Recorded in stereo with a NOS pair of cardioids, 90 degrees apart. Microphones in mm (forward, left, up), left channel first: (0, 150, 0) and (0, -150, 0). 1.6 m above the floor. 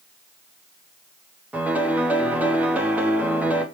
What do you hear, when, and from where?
1.5 s a piano: 5° right, 0.8 m